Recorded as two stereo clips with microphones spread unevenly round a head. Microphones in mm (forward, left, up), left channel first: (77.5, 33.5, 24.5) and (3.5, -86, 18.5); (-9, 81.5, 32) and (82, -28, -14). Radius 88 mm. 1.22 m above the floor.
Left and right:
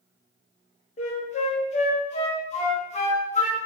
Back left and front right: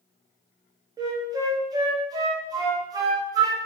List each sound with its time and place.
1.0 s a flute: 20° left, 0.8 m